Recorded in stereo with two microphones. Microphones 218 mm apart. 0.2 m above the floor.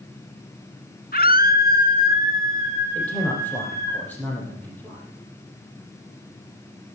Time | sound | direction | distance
1.1 | a scream | 45° left (ahead or behind) | 1.7 m
3.0 | a man speaking | 5° left (ahead or behind) | 5.5 m